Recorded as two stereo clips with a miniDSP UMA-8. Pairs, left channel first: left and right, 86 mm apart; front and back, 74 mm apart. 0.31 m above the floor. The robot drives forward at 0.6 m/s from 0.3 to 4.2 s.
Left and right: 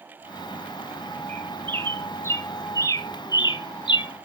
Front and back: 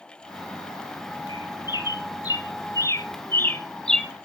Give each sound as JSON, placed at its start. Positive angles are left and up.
{"t": 1.3, "sound": "a bird", "azimuth_deg": 25, "distance_m": 1.9}